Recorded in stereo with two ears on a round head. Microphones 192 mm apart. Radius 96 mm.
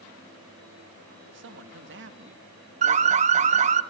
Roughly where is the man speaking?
Right.